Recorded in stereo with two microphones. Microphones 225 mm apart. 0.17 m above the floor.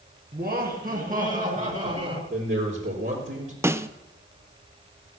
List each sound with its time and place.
0.3 s laughter: 45° right (ahead or behind), 2.5 m; by 2.2 s 30° right (ahead or behind), 3 m
2.3 s a man speaking: 55° right (ahead or behind), 4 m
3.6 s a snare drum: 10° right (ahead or behind), 0.6 m